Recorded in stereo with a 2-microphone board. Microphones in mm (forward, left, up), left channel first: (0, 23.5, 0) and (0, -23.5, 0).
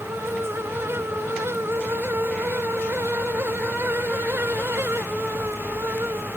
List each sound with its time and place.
Only background noise.